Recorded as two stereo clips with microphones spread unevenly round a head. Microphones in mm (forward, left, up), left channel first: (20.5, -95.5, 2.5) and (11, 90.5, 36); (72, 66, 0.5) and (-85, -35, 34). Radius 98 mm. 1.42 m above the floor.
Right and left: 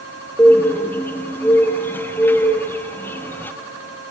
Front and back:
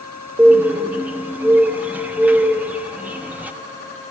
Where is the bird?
175° right, 0.8 m.